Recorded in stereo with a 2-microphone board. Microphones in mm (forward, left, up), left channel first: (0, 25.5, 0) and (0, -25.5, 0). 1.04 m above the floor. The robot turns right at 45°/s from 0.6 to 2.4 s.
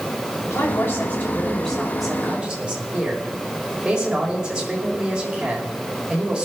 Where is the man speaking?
115° left, 5.5 m; by 6.5 s 160° right, 5.5 m.